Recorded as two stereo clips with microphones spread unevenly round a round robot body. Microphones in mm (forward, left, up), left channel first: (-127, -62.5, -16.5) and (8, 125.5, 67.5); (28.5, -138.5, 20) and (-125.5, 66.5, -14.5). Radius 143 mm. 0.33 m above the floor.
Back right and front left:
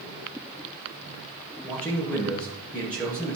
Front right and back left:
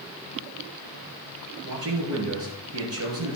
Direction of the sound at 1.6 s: 155° left.